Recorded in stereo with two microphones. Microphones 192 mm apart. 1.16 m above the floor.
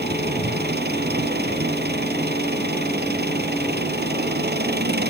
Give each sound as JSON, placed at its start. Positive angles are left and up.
{"t": 0.0, "sound": "an engine running", "side_deg": -60}